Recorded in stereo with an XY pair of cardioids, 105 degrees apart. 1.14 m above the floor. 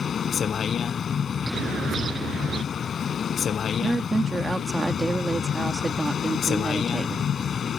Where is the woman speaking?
20° right.